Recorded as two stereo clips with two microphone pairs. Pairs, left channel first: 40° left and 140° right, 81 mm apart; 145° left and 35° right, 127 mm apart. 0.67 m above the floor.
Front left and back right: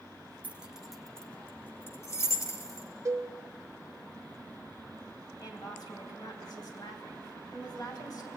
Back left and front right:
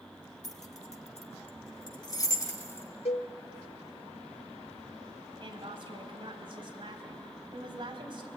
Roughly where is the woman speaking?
Ahead.